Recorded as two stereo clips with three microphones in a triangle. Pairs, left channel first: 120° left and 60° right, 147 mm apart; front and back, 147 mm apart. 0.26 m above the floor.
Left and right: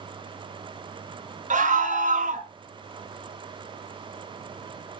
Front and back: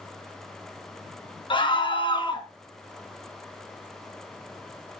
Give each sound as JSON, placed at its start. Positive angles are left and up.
{"t": 1.5, "sound": "a scream", "azimuth_deg": -50, "distance_m": 3.0}